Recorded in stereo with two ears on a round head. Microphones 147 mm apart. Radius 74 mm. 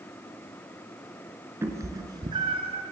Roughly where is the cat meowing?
Centre.